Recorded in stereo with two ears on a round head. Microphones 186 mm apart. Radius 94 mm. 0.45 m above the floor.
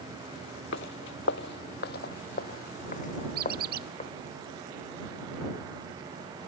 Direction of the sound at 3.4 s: 55° right (ahead or behind).